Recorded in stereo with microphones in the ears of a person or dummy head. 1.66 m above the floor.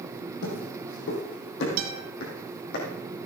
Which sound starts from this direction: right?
A guitar, at 1.8 s.